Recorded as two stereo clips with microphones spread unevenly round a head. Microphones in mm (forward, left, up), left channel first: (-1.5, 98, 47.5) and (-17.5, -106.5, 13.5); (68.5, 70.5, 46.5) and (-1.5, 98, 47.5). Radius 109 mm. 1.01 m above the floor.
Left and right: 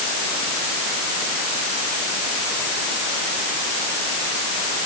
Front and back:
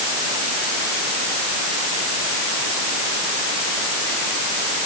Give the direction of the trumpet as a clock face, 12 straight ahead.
No trumpet in this recording.